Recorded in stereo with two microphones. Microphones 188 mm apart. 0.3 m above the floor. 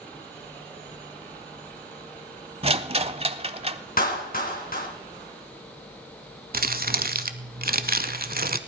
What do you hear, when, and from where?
2.6 s a rattle: 35° right (ahead or behind), 0.7 m
4.0 s a clap: 50° left (ahead or behind), 2.5 m
6.5 s crumpling: 55° right (ahead or behind), 0.8 m